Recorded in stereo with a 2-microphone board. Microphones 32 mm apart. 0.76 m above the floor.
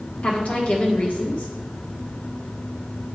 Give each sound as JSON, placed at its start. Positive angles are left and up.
{"t": 0.2, "sound": "a woman speaking", "side_deg": 60, "distance_m": 1.2}